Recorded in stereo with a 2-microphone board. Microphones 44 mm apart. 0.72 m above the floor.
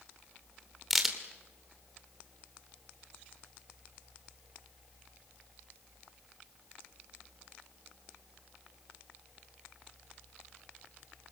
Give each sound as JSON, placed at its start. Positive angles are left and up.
{"t": 0.9, "sound": "a crack", "side_deg": 0, "distance_m": 2.5}